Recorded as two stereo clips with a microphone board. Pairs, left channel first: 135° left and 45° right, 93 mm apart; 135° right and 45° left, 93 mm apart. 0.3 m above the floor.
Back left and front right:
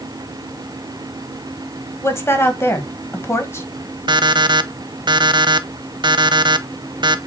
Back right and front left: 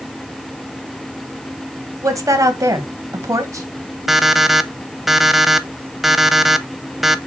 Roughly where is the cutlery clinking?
No cutlery clinking in this recording.